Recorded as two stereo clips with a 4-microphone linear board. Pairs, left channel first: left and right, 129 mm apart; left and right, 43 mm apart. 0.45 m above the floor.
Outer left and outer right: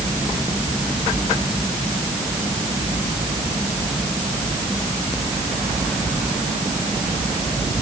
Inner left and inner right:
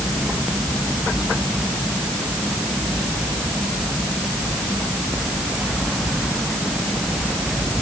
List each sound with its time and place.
Only background noise.